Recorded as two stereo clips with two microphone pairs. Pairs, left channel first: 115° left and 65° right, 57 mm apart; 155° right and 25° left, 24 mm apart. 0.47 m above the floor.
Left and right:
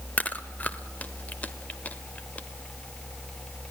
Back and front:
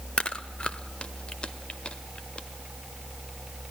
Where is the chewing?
175° left, 1.1 m.